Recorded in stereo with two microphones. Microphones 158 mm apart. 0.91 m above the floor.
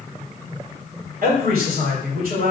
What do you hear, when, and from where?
1.2 s a man speaking: 75° right (ahead or behind), 3 m